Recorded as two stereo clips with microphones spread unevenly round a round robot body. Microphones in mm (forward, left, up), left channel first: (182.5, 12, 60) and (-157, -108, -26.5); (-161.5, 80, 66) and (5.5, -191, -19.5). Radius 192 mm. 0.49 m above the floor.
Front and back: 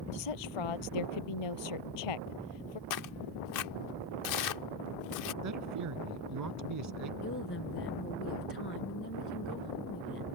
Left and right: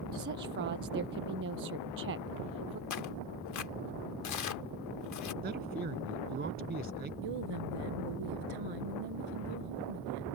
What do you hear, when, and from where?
0.1 s a woman speaking: 5° left
2.9 s tearing paper: 70° left
5.4 s a man speaking: 120° right
7.2 s a woman speaking: 40° right